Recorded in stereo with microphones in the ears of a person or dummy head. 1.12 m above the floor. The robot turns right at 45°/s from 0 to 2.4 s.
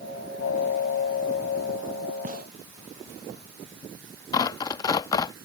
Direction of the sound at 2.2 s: 45° right (ahead or behind).